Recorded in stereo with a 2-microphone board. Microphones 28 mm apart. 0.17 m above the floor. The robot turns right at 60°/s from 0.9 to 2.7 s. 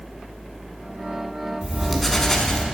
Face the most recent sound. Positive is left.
turn(degrees=35)